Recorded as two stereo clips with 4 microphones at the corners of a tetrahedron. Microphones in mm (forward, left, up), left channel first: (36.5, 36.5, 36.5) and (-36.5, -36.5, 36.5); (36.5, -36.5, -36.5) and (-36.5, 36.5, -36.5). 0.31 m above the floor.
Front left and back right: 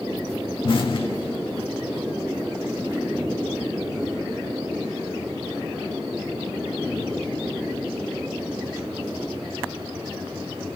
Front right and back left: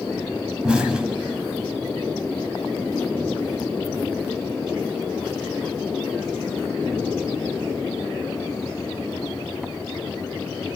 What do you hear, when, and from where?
0.6 s an explosion: 55° left, 0.8 m